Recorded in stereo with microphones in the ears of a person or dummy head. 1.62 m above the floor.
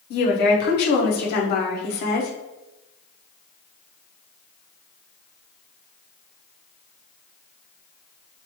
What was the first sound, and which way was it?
A woman speaking, 50° left (ahead or behind).